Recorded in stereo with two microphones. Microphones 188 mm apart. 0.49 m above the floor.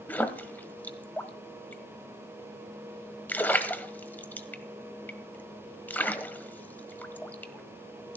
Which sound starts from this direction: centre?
A splash, at 0.1 s.